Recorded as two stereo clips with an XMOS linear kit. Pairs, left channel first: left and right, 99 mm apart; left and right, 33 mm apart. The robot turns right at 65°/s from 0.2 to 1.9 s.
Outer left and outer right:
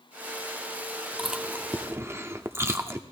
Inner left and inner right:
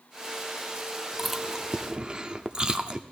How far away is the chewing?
About 0.7 m.